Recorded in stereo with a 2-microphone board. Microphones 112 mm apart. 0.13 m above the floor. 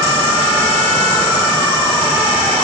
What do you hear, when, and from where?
Only background noise.